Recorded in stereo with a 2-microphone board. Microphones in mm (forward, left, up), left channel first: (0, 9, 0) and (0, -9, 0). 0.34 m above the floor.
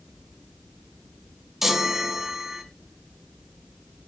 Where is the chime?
10° right (ahead or behind), 2 m.